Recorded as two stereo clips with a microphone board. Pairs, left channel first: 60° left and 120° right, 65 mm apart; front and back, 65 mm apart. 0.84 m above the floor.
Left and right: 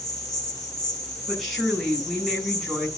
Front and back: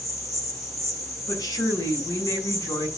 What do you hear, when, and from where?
0.0 s an insect: 35° left, 3 m
1.3 s a woman speaking: 30° right, 6.5 m